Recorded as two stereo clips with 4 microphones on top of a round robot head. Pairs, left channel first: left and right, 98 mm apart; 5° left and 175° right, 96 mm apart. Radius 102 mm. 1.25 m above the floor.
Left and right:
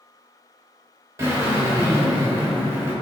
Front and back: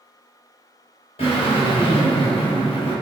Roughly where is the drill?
Ahead right.